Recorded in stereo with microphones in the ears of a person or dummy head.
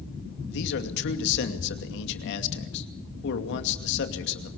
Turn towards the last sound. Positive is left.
turn(degrees=65)  # may be behind; listen again after turning